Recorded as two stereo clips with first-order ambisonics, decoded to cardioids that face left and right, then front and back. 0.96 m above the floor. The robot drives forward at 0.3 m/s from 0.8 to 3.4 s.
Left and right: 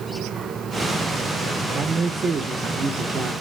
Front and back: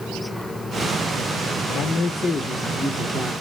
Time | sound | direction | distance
1.7 | a man speaking | 35° right | 0.6 m